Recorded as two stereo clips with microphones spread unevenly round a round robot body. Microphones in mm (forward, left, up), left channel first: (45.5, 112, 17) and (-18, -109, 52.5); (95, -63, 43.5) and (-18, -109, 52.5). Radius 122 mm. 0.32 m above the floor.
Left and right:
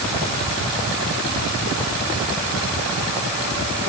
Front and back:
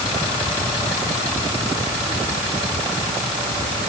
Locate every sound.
Only background noise.